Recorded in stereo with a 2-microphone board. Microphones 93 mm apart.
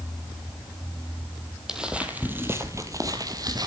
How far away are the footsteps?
About 1.5 m.